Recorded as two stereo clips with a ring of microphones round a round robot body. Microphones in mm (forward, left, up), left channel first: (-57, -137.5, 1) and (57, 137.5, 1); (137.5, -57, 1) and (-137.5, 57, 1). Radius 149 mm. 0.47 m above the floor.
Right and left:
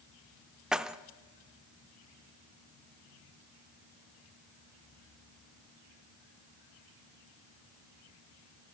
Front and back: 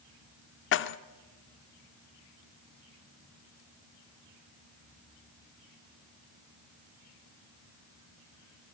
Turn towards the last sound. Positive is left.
turn(degrees=-20)